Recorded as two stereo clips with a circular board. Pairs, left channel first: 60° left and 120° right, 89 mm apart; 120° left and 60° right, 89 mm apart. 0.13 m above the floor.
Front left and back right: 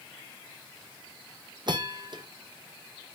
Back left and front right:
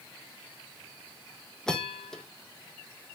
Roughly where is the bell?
Behind.